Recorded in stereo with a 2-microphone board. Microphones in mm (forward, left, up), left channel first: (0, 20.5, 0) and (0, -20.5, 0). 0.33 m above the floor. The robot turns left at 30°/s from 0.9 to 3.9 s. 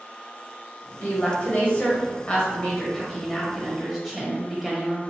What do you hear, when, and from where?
1.0 s a woman speaking: 80° left, 1.3 m; by 5.0 s 10° right, 1.3 m